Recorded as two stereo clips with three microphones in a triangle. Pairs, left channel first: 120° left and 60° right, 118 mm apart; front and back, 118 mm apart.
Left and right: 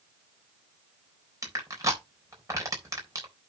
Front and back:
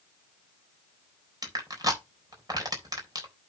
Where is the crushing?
125° right, 3.5 m.